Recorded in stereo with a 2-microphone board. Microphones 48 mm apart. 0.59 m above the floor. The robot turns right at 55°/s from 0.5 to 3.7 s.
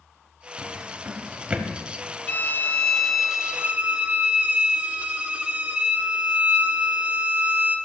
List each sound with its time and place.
0.6 s a drawer: 75° right (ahead or behind), 1.4 m; by 1.7 s 15° right (ahead or behind), 1.4 m
2.3 s a violin: 135° left, 0.9 m; by 7.8 s 145° right, 0.9 m